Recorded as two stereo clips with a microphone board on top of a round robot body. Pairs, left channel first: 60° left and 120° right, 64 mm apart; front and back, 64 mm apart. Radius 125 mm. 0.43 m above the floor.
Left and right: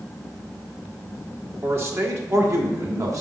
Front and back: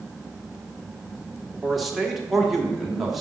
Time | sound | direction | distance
1.6 | a man speaking | 95° right | 1.7 m